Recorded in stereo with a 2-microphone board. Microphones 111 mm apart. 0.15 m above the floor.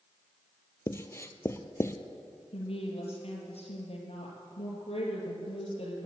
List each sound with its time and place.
0.9 s writing: 25° left (ahead or behind), 0.7 m
2.5 s a woman speaking: 60° left (ahead or behind), 3 m